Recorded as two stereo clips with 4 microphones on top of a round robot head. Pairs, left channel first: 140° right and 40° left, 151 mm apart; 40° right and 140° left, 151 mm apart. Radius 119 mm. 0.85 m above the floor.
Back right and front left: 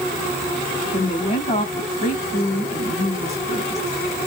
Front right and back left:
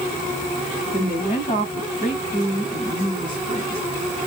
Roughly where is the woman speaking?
Right.